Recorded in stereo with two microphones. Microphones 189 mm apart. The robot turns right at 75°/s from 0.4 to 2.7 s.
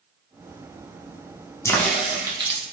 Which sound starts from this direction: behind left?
A crack, at 1.6 s.